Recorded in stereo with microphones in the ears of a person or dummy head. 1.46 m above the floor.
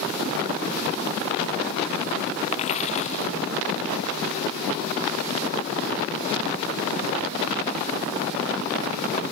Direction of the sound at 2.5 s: 40° left (ahead or behind).